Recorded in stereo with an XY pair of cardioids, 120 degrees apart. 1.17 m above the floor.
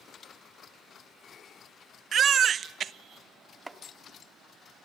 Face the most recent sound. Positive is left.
turn(degrees=-15)